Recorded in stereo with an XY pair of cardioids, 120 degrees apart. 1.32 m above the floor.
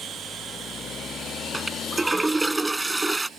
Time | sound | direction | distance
1.5 | a toilet flushing | 15° right | ?